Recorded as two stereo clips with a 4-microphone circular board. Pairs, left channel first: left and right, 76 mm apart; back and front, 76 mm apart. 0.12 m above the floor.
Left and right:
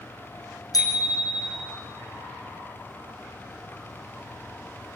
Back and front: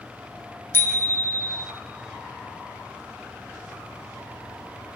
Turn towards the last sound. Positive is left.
turn(degrees=125)